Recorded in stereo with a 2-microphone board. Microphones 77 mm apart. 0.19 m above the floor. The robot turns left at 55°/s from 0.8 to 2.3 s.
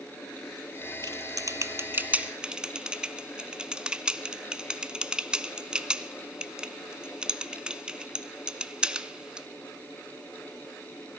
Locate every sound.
1.0 s typing on a keyboard: 60° right (ahead or behind), 0.6 m; by 9.5 s 15° right (ahead or behind), 0.6 m